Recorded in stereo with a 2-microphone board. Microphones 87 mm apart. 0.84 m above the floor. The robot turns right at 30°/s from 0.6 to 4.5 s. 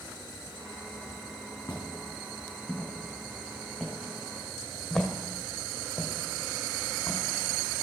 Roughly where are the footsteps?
Left.